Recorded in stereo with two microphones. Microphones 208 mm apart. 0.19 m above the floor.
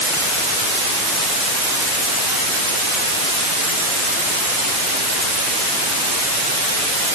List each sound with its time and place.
Only background noise.